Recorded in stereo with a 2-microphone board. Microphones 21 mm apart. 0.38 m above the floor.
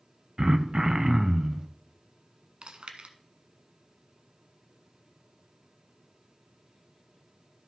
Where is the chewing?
55° right (ahead or behind), 0.9 m.